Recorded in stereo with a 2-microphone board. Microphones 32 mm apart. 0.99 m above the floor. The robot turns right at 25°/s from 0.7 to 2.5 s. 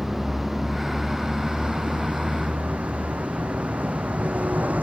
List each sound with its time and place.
0.0 s a vehicle: 10° right (ahead or behind); by 4.8 s 55° right (ahead or behind)